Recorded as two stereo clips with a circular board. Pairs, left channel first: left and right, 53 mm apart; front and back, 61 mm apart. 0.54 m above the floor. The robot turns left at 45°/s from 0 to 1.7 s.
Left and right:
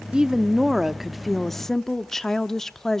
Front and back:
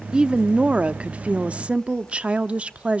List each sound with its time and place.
0.1 s a woman speaking: 130° right, 0.6 m; by 3.0 s 155° left, 0.6 m